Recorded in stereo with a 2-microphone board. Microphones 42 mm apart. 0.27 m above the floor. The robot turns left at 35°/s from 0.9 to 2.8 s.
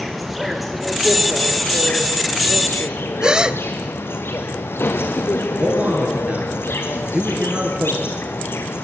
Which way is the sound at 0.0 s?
Straight behind.